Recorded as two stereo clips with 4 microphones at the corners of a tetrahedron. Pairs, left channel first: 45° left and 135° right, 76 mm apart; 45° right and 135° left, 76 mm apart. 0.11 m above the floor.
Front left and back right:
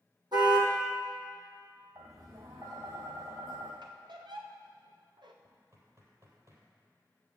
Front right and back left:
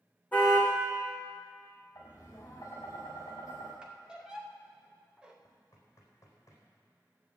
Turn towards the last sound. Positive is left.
turn(degrees=-95)